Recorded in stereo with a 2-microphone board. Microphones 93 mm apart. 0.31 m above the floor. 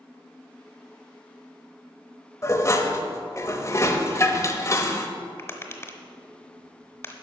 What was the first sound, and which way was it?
Dishes clattering, 35° left (ahead or behind).